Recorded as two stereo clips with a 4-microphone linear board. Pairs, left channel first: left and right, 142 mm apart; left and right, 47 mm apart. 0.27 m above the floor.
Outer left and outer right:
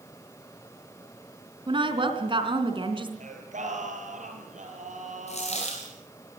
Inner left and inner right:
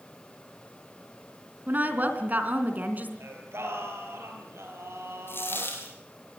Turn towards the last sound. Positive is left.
turn(degrees=55)  # may be behind; listen again after turning